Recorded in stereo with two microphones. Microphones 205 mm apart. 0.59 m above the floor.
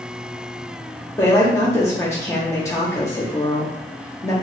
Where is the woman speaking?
15° left (ahead or behind), 0.8 m.